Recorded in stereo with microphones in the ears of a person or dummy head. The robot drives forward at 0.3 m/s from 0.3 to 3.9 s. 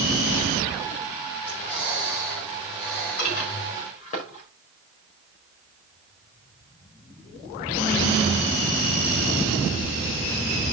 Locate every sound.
1.4 s breathing: 10° left (ahead or behind), 3.5 m; by 3.9 s 5° left (ahead or behind), 4 m
3.2 s dishes clattering: 45° left (ahead or behind), 5 m